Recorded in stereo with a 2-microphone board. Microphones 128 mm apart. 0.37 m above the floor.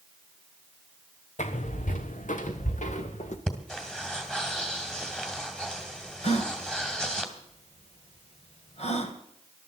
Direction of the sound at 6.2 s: 55° left (ahead or behind).